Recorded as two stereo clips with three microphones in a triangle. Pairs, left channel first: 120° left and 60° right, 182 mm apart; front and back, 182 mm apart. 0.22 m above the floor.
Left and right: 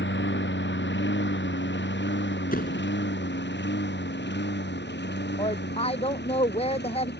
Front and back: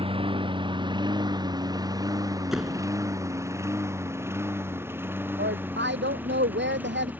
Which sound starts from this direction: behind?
A woman speaking, at 5.4 s.